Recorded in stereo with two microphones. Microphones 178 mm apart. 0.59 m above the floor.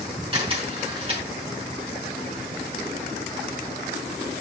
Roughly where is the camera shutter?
Right.